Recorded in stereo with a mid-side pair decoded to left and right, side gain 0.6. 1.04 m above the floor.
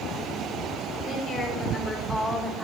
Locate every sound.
1.0 s a woman speaking: 35° left, 3.5 m; by 2.6 s 5° right, 2 m